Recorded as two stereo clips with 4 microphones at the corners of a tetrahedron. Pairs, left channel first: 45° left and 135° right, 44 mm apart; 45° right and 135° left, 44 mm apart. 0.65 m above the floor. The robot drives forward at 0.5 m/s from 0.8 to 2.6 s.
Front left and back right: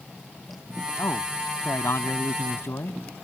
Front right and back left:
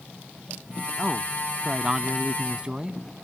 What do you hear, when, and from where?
1.0 s a man speaking: 60° left; by 3.0 s 65° left